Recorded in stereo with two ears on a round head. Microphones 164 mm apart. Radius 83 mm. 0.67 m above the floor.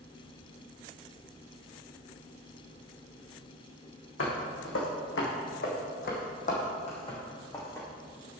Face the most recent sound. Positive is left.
turn(degrees=15)  # may be behind; listen again after turning